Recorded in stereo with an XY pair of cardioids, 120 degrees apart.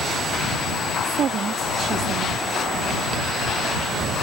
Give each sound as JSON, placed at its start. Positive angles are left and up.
{"t": 1.0, "sound": "a woman speaking", "azimuth_deg": -55}